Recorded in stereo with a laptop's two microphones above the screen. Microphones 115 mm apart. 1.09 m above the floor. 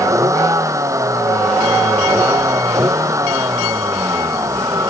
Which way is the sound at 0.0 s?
25° right (ahead or behind).